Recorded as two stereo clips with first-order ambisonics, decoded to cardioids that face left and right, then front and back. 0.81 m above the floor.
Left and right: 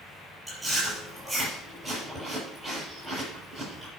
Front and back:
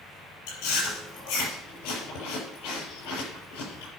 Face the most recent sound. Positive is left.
turn(degrees=-10)